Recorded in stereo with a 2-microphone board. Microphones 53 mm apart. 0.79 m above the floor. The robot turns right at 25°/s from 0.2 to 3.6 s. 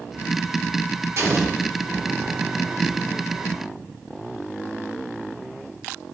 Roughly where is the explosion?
Right.